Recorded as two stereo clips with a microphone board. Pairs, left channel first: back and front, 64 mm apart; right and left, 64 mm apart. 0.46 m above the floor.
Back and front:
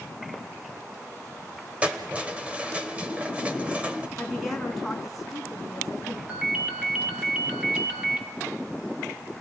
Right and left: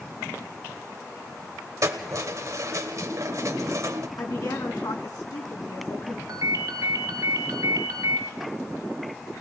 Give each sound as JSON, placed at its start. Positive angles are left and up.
{"t": 1.8, "sound": "keys jangling", "azimuth_deg": 65, "distance_m": 1.6}
{"t": 4.2, "sound": "a woman speaking", "azimuth_deg": -90, "distance_m": 3.5}
{"t": 6.3, "sound": "a ringtone", "azimuth_deg": 70, "distance_m": 2.0}